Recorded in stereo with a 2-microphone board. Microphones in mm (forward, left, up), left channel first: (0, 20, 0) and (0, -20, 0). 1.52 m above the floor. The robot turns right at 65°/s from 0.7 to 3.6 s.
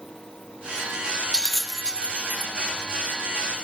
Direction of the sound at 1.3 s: 15° left (ahead or behind).